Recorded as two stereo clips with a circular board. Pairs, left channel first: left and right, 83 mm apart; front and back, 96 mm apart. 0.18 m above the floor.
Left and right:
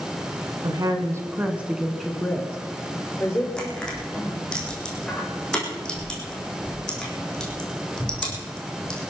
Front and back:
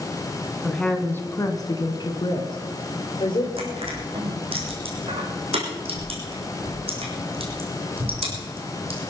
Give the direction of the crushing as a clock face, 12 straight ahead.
6 o'clock.